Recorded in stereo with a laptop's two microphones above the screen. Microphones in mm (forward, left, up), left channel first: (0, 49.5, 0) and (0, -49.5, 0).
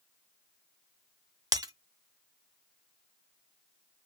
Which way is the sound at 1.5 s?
40° right (ahead or behind).